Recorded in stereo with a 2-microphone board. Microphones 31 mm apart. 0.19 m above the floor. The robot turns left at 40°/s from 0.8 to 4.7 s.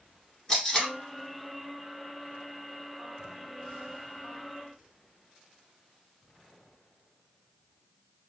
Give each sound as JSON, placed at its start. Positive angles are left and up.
{"t": 0.5, "sound": "tape being pulled", "side_deg": 20, "distance_m": 1.8}